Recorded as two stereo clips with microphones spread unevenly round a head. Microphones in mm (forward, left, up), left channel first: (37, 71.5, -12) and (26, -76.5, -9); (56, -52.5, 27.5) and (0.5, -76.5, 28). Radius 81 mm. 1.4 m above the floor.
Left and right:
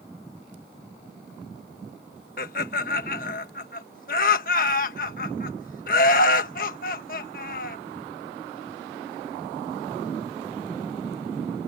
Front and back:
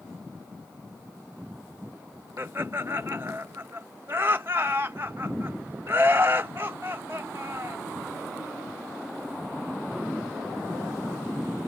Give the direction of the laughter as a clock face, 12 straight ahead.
8 o'clock.